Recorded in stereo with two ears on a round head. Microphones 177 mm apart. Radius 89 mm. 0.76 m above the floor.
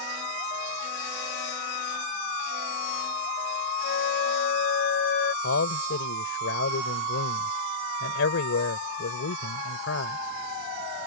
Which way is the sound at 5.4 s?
75° left (ahead or behind).